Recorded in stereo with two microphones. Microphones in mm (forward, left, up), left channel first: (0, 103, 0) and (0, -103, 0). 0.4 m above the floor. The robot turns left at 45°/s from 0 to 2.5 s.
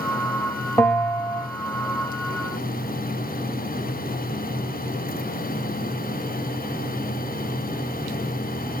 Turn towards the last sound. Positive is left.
turn(degrees=95)